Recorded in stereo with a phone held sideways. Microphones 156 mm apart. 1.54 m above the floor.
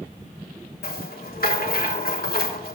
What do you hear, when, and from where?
0.8 s a rattle: 75° left (ahead or behind), 1.3 m